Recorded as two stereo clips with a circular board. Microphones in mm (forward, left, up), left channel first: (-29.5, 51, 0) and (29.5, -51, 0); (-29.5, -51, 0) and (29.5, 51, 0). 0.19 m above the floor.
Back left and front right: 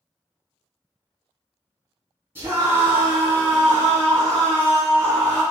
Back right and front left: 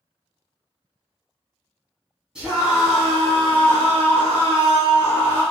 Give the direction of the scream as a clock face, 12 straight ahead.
12 o'clock.